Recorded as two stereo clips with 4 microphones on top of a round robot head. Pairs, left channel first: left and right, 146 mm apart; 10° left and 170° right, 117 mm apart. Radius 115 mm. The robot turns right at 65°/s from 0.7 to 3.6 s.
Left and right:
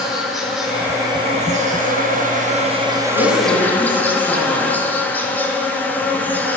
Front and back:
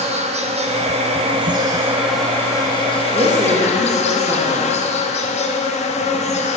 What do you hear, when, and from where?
0.0 s an insect: 175° right, 1.5 m; by 6.6 s 10° left, 1.5 m
3.1 s a woman speaking: 130° left, 2.5 m; by 4.7 s 160° left, 2.5 m